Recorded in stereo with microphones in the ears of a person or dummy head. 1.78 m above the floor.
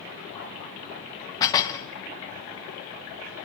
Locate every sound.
1.4 s dishes clattering: 20° left (ahead or behind), 1.5 m